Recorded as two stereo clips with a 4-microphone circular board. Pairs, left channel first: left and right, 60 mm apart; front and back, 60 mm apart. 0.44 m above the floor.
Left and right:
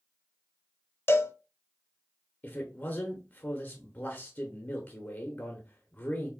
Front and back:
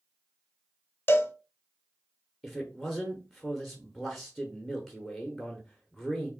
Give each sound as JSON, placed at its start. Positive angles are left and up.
{"t": 1.1, "sound": "a cowbell", "azimuth_deg": 50, "distance_m": 0.5}
{"t": 2.4, "sound": "a man speaking", "azimuth_deg": 90, "distance_m": 0.8}